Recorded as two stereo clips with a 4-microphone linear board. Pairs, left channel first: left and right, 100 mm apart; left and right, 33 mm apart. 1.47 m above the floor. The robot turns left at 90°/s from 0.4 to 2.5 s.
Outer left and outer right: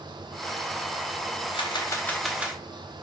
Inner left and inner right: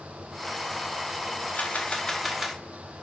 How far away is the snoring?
No snoring in this recording.